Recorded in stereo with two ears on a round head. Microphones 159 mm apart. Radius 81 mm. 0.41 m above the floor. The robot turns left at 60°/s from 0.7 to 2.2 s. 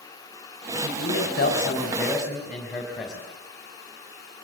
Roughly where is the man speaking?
Left.